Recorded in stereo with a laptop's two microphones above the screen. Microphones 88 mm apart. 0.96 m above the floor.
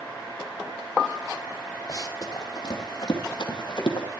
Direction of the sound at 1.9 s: 40° left (ahead or behind).